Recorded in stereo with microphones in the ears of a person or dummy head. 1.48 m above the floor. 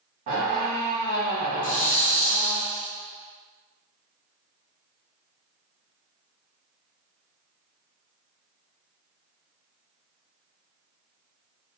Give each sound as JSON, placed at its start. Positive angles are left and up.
{"t": 0.3, "sound": "a squeak", "side_deg": -40, "distance_m": 0.7}
{"t": 1.6, "sound": "a hiss", "side_deg": 45, "distance_m": 0.5}